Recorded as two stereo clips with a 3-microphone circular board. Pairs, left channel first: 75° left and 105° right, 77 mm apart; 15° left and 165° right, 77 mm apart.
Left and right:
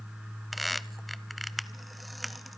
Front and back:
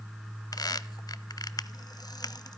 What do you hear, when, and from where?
0.5 s a squeak: 15° right, 0.5 m